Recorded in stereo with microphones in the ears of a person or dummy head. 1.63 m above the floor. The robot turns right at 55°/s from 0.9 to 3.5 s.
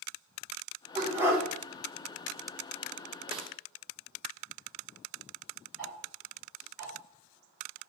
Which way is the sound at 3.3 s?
30° right (ahead or behind).